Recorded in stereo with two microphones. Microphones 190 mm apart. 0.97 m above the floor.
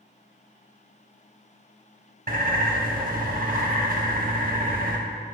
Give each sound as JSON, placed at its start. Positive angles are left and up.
{"t": 2.3, "sound": "a bird", "side_deg": -50, "distance_m": 0.9}